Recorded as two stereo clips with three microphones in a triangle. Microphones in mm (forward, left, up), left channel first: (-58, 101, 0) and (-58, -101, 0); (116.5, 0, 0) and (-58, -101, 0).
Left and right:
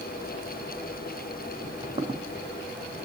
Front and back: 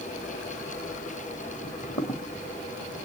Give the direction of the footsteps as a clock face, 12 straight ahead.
1 o'clock.